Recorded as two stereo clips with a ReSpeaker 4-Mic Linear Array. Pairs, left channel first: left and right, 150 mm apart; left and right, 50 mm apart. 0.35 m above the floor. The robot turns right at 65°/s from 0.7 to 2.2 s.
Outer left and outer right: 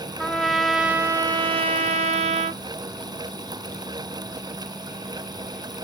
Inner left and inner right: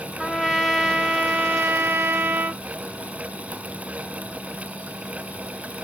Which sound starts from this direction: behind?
A trumpet, at 0.2 s.